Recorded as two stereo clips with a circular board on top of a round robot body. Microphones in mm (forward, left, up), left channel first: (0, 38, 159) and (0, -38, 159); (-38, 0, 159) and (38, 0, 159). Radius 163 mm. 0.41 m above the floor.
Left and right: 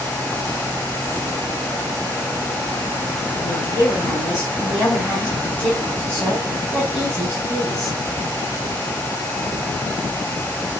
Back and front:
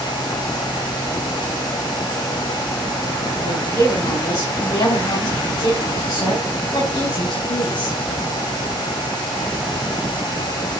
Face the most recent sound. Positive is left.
turn(degrees=175)